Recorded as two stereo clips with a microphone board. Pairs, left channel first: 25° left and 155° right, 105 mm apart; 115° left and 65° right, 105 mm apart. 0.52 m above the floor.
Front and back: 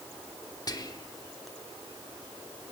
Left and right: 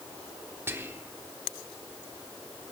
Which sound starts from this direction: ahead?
Whispering, at 0.7 s.